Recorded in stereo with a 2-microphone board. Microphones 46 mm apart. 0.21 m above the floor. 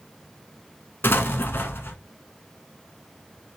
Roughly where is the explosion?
Left.